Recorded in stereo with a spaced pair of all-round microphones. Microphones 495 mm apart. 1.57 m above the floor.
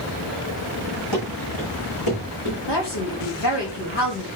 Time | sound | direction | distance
1.1 | running footsteps | 60° left (ahead or behind) | 5.5 m
2.7 | a woman speaking | 55° left (ahead or behind) | 2.5 m